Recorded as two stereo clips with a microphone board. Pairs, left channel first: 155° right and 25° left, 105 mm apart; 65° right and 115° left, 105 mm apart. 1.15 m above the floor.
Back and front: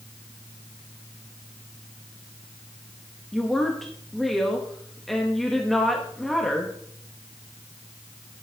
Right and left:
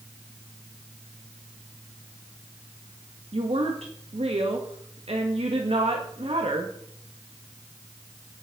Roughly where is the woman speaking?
Behind left.